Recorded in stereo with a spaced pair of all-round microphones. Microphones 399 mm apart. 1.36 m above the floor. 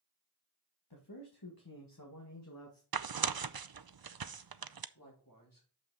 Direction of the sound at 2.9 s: 65° right (ahead or behind).